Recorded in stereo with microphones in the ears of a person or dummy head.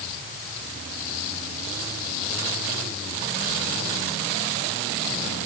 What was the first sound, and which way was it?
Only background noise.